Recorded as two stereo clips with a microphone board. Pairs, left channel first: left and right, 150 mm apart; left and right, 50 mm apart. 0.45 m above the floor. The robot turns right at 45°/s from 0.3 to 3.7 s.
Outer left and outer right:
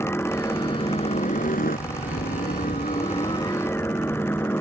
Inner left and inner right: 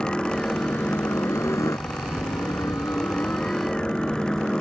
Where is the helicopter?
15° left; by 4.6 s 165° left.